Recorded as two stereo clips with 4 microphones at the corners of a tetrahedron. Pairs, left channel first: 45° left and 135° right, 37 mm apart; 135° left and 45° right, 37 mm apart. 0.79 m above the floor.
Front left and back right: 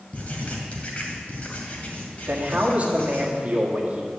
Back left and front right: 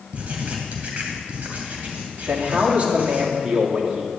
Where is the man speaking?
90° right, 1.8 m.